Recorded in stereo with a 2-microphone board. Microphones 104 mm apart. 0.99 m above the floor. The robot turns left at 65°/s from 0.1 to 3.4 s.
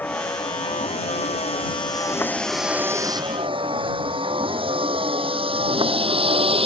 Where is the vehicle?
20° left (ahead or behind); by 6.7 s 70° right (ahead or behind).